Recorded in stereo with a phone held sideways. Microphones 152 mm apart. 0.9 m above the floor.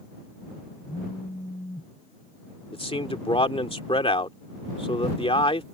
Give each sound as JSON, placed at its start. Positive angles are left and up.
{"t": 0.9, "sound": "a phone buzzing", "side_deg": 35}
{"t": 2.7, "sound": "a man speaking", "side_deg": 35}